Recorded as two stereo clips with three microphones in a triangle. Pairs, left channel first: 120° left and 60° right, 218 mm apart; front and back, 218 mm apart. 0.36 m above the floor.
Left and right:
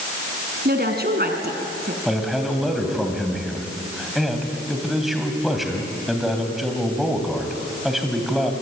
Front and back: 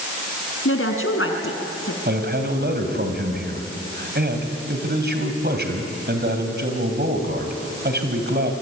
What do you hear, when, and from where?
0.7 s a woman speaking: 15° right, 3 m
2.0 s a man speaking: 150° right, 3 m